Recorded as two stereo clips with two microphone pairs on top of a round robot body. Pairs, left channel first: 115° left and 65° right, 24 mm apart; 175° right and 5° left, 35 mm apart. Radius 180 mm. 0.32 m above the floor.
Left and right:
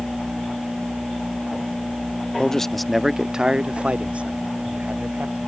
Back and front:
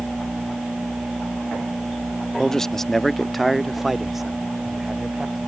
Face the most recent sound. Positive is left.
turn(degrees=-80)